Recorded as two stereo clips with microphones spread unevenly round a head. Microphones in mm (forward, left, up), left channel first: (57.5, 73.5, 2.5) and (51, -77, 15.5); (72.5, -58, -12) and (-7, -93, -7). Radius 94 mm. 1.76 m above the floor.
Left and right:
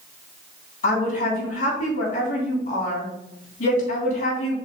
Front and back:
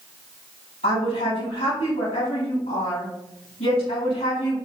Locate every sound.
0.8 s a woman speaking: 50° left, 3.5 m